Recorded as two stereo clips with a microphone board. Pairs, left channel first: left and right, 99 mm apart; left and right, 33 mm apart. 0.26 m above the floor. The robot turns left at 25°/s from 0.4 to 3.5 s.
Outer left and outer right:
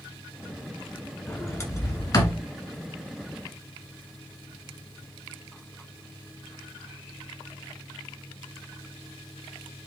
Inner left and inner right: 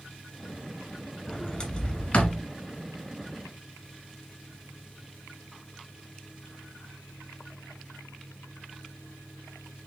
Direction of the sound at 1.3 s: 25° left (ahead or behind).